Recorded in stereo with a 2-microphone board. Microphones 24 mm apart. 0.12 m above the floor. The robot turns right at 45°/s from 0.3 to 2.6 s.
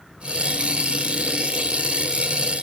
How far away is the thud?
No thud in this recording.